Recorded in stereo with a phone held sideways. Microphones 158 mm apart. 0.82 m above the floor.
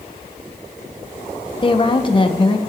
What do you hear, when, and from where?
1.6 s a woman speaking: 30° left (ahead or behind), 1.3 m